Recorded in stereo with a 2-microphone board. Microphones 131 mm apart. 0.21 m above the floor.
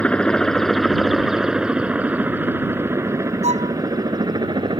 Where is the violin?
55° right (ahead or behind).